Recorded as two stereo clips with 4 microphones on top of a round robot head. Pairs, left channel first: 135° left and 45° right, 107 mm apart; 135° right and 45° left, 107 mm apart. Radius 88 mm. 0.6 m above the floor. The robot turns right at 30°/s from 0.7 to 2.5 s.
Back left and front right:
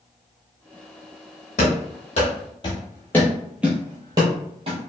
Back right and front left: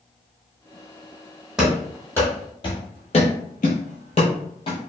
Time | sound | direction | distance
1.6 | running footsteps | 130° left | 1.3 m